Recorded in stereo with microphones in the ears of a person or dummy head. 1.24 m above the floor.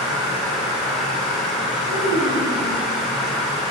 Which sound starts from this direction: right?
A child speaking, at 1.9 s.